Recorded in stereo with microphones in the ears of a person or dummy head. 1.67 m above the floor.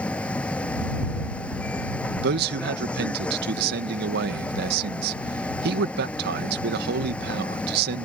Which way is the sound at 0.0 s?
5° left (ahead or behind).